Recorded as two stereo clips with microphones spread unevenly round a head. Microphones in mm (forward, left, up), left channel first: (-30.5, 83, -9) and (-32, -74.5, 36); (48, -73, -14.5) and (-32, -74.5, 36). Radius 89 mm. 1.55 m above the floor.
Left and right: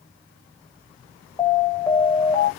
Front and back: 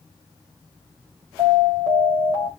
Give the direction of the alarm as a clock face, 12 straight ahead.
6 o'clock.